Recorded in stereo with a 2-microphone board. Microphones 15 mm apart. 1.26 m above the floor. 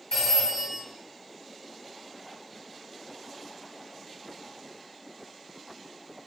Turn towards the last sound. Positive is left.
turn(degrees=50)  # may be behind; listen again after turning